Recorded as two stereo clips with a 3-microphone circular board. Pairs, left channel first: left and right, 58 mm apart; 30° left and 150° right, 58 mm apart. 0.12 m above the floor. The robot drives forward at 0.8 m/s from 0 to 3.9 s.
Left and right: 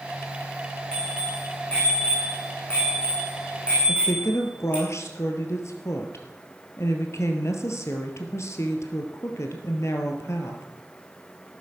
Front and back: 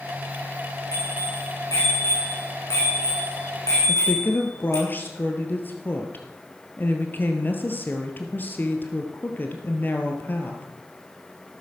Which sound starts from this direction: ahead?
A bicycle bell, at 0.9 s.